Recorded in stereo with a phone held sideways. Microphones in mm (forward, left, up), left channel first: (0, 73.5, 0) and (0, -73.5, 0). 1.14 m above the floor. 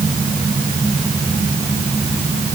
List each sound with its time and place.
Only background noise.